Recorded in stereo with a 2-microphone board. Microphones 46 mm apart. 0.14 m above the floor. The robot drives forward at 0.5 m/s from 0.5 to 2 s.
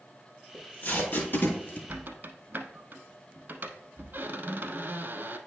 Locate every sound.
0.5 s tape being pulled: 45° left (ahead or behind), 2 m; by 1.8 s 55° left (ahead or behind), 1.8 m
1.9 s a squeak: 40° right (ahead or behind), 0.7 m